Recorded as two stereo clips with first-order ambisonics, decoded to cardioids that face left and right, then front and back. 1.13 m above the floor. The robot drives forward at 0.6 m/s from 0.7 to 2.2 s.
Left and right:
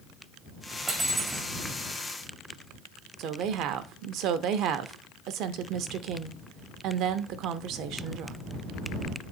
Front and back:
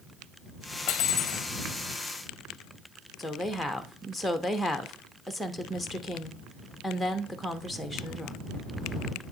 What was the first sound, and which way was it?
Cutlery clinking, 15° right.